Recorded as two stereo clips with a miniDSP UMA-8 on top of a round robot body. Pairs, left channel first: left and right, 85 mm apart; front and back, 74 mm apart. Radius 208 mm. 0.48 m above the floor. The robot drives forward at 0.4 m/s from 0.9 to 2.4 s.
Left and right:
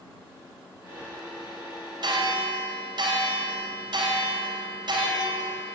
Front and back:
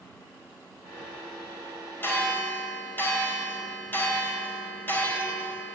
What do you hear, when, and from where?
2.0 s a bell: 60° right, 3.5 m